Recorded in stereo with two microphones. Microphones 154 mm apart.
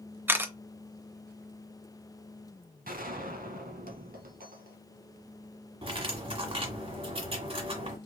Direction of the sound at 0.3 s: 15° right (ahead or behind).